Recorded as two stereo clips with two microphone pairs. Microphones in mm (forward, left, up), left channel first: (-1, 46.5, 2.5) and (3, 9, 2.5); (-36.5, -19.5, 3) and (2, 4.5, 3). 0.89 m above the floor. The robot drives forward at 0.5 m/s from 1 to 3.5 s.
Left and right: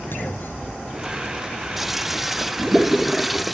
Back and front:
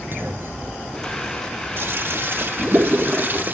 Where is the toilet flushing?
5° left; by 3.6 s 10° left.